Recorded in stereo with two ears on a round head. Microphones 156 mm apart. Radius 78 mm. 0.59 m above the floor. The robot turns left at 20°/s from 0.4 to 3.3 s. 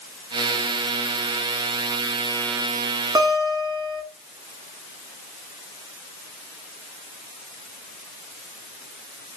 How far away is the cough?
I don't hear a cough.